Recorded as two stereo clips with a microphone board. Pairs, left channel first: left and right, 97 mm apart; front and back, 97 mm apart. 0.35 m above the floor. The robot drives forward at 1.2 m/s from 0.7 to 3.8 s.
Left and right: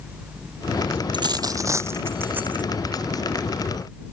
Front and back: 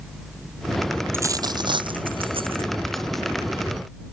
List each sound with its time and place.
1.1 s a dropped coin: 120° right; by 2.7 s 165° right